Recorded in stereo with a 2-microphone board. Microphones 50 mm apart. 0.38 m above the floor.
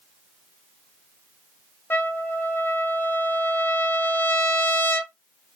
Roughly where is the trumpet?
Left.